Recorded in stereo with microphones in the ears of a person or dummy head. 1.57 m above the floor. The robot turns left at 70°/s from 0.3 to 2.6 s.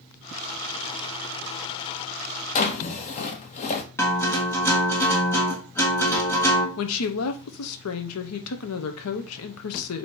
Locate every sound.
2.5 s a drawer: 40° left (ahead or behind), 1.0 m
4.0 s a guitar: 10° left (ahead or behind), 1.3 m
6.8 s a woman speaking: 75° left (ahead or behind), 0.8 m